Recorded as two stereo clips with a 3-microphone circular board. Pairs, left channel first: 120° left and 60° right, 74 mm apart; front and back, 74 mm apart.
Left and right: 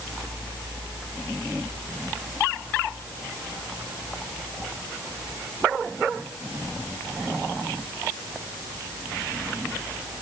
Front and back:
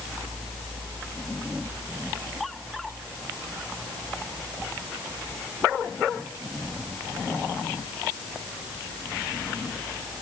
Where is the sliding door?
No sliding door in this recording.